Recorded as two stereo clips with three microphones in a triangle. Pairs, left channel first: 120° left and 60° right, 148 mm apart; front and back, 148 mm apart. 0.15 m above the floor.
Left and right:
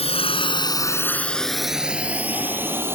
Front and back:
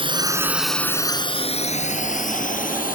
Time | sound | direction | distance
0.0 | a drone | 145° left | ?